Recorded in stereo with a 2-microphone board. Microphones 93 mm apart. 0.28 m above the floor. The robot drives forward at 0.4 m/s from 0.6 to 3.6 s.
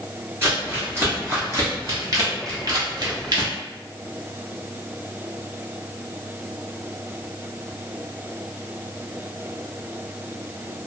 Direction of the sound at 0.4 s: 25° right (ahead or behind).